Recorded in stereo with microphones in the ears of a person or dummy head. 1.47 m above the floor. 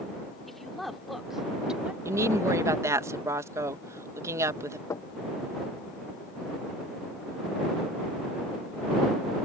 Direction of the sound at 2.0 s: 15° right (ahead or behind).